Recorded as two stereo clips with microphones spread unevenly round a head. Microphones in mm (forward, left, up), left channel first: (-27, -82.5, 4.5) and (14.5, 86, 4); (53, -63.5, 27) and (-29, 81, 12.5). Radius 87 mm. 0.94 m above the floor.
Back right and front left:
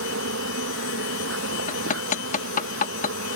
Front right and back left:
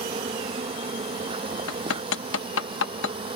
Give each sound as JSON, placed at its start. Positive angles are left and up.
{"t": 0.0, "sound": "an insect", "azimuth_deg": 60}
{"t": 1.7, "sound": "hammering", "azimuth_deg": -55}